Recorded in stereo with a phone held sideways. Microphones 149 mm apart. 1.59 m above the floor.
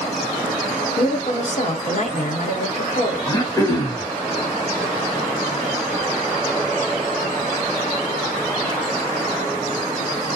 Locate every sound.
1.0 s a woman speaking: 50° left (ahead or behind), 1.0 m
3.3 s throat clearing: 20° left (ahead or behind), 0.8 m